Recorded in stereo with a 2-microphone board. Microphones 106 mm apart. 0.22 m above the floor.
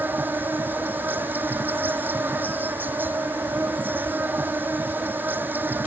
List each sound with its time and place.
0.0 s an insect: 20° right (ahead or behind)